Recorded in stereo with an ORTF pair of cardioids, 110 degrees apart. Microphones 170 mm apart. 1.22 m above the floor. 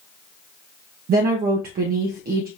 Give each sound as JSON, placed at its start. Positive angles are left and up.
{"t": 1.1, "sound": "a woman speaking", "azimuth_deg": -60, "distance_m": 0.9}